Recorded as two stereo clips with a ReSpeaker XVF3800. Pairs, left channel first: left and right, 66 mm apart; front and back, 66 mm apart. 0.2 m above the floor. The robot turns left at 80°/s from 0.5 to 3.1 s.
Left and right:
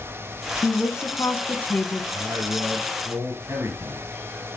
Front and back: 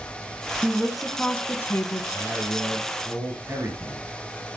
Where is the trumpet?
No trumpet in this recording.